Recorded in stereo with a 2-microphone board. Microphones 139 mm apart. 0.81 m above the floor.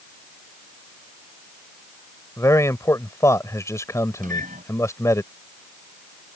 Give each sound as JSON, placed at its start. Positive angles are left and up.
{"t": 2.4, "sound": "a man speaking", "side_deg": 20}
{"t": 4.2, "sound": "a microwave", "side_deg": -80}